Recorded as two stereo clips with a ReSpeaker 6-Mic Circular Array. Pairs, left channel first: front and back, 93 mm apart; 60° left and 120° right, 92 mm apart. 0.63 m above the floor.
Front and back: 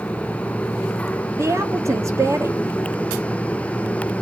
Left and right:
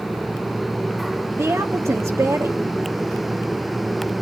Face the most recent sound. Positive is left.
turn(degrees=-150)